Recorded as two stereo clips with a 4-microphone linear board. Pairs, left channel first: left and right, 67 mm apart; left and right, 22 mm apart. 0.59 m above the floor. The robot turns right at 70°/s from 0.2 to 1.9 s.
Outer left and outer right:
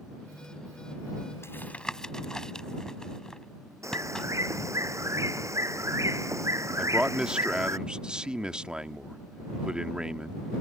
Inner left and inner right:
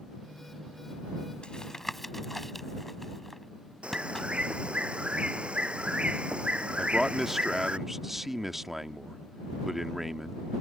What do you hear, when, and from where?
1.4 s tapping: 40° left (ahead or behind); by 4.3 s 10° left (ahead or behind)
3.8 s a bird: 50° right (ahead or behind)
6.8 s a man speaking: 15° right (ahead or behind)